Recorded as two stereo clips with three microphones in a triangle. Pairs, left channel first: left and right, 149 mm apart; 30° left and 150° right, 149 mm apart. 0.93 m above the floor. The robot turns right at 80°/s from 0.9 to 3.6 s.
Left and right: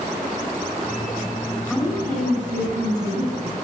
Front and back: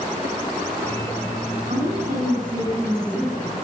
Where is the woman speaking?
Straight behind, 5 m; by 3.6 s 25° right, 5 m.